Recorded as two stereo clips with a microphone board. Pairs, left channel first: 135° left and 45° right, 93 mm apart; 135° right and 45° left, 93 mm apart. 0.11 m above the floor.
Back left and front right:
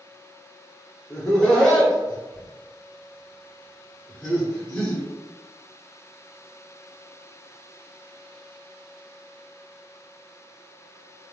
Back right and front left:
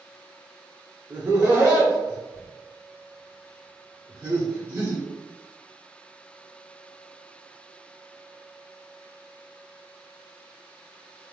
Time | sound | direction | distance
1.1 | laughter | 65° left | 1.2 m